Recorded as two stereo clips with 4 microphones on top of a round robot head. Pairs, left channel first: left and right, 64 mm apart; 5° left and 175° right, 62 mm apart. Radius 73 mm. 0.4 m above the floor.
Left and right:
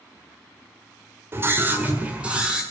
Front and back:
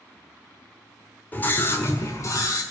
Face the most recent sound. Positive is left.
turn(degrees=-15)